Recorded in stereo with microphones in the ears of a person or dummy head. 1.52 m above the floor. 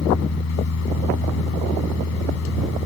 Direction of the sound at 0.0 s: 65° left (ahead or behind).